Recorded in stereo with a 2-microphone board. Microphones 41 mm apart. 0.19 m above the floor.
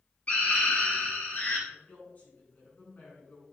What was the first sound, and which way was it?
A scream, 35° left (ahead or behind).